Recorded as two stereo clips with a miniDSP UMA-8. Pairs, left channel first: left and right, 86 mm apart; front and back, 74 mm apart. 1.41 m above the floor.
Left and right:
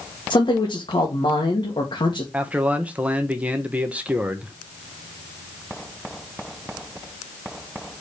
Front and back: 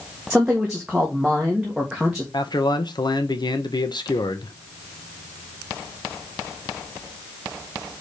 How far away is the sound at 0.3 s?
About 1.7 m.